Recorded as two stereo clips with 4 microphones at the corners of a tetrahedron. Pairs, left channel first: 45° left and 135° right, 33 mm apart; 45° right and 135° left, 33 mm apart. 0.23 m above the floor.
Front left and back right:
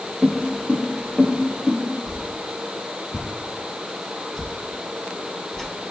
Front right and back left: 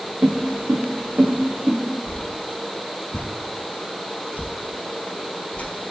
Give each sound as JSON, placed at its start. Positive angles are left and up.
{"t": 0.2, "sound": "footsteps", "azimuth_deg": 140, "distance_m": 1.0}
{"t": 2.1, "sound": "a whoosh", "azimuth_deg": -30, "distance_m": 0.6}